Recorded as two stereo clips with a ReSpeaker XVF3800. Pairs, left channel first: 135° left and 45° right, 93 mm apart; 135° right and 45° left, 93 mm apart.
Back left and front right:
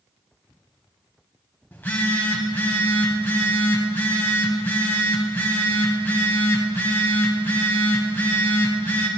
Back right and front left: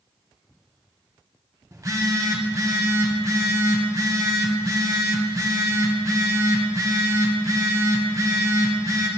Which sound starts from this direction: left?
A phone buzzing, at 1.7 s.